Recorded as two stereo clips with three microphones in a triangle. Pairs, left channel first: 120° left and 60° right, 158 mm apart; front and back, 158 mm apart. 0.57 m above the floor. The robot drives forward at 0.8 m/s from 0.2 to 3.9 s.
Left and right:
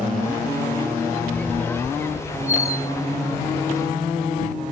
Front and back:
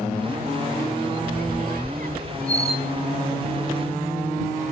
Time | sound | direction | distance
1.3 | a squeak | 160° right | ?